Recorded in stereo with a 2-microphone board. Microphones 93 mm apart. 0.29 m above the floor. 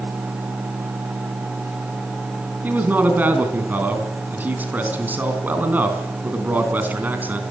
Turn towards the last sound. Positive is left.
turn(degrees=-20)  # may be behind; listen again after turning